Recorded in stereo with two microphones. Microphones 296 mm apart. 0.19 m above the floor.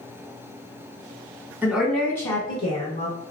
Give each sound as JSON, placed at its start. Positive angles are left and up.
{"t": 1.6, "sound": "a woman speaking", "side_deg": -5, "distance_m": 1.3}